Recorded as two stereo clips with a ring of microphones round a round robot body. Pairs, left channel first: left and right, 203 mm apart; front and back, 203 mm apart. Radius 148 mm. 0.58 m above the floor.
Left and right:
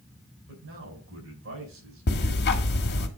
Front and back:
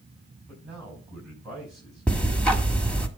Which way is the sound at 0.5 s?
90° right.